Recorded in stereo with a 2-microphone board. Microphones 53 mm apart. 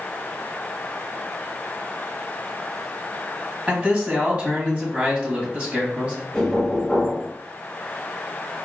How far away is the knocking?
About 1.6 m.